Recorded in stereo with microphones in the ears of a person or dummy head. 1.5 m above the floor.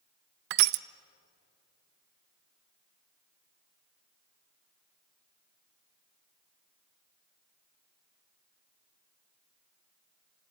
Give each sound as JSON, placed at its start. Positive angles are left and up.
{"t": 0.5, "sound": "crushing", "side_deg": -50, "distance_m": 0.5}